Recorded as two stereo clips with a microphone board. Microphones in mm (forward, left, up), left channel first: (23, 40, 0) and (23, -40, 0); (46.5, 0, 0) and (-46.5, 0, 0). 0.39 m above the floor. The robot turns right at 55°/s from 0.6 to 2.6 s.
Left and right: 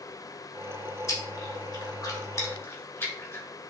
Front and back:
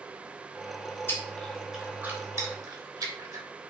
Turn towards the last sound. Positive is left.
turn(degrees=140)